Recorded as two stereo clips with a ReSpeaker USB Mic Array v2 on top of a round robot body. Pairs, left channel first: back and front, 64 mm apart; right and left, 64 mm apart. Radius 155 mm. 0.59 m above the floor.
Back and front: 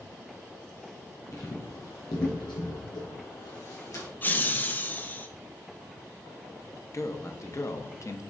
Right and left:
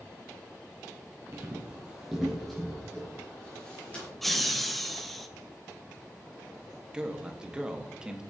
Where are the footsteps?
140° left, 1.3 m; by 4.1 s 155° right, 2.5 m.